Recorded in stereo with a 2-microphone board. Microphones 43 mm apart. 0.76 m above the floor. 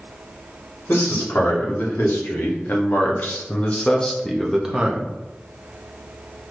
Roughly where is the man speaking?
Left.